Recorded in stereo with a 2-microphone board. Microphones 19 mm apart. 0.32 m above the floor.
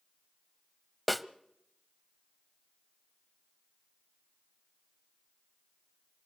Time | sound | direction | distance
1.1 | a snare drum | centre (ahead or behind) | 0.6 m